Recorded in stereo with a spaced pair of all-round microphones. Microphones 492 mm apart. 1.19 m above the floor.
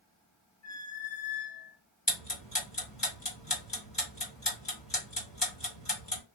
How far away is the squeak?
About 1.4 m.